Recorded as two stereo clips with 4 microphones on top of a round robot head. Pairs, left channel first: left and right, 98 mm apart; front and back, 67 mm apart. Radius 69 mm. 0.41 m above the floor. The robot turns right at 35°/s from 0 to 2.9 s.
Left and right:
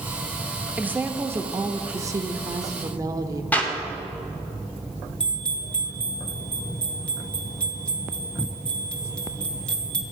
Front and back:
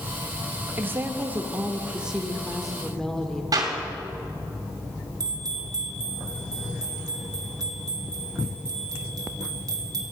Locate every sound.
0.8 s a woman speaking: 155° right, 1.0 m; by 3.4 s 80° right, 1.0 m
3.5 s a clap: 165° left, 2.5 m
5.2 s a bell: 170° left, 1.9 m